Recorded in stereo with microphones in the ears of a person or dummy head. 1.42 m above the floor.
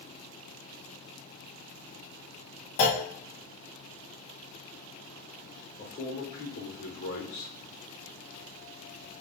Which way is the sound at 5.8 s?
60° left (ahead or behind).